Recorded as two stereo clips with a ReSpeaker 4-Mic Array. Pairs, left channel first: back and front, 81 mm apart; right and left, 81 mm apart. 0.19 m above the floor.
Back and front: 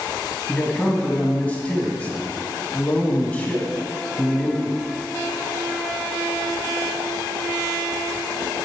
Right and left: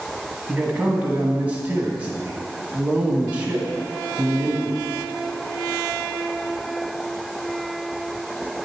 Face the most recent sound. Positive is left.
turn(degrees=130)